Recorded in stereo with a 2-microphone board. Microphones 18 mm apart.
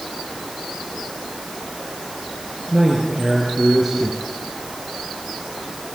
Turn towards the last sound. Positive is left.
turn(degrees=-20)  # may be behind; listen again after turning